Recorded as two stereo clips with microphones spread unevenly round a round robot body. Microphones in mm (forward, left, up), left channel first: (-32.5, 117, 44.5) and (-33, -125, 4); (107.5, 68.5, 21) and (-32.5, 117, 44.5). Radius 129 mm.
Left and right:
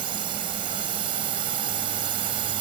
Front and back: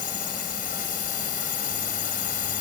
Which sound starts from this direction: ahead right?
A drone, at 0.0 s.